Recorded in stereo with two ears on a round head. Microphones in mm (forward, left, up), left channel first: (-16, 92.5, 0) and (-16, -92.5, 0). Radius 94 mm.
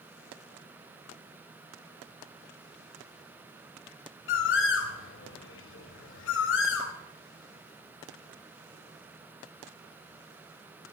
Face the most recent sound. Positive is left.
turn(degrees=60)  # may be behind; listen again after turning